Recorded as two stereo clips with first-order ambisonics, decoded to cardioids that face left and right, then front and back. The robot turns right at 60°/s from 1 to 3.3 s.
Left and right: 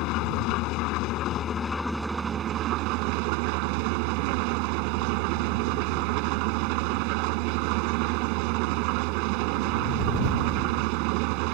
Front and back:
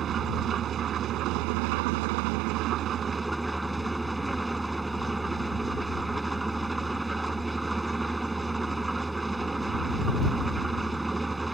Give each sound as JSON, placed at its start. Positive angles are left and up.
{"t": 0.0, "sound": "an engine running", "azimuth_deg": 125}